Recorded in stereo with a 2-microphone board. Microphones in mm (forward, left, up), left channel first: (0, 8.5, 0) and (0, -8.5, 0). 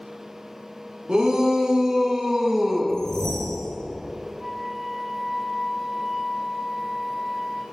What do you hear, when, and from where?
1.1 s a shout: 55° right (ahead or behind), 1.7 m; by 2.9 s 25° right (ahead or behind), 1.1 m
2.9 s a whoosh: 35° left (ahead or behind), 2.5 m
4.4 s a flute: 10° right (ahead or behind), 1.2 m